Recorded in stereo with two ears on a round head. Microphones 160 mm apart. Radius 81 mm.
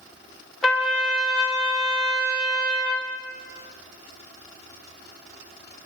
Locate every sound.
0.6 s a trumpet: centre (ahead or behind), 2 m